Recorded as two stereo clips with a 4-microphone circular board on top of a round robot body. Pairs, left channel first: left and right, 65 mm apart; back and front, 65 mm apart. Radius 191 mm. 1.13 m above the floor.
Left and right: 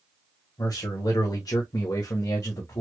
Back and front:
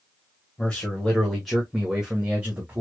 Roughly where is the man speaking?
Left.